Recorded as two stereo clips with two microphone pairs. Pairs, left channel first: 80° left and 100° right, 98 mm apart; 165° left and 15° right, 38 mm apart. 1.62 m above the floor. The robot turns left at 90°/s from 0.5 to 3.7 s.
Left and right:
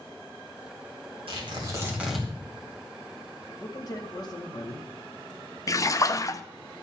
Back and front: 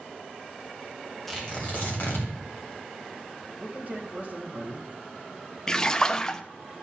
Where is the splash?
95° left, 0.5 m.